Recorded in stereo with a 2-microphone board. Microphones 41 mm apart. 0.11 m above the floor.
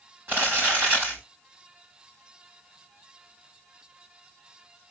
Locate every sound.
0.3 s crumpling: 50° right (ahead or behind), 5 m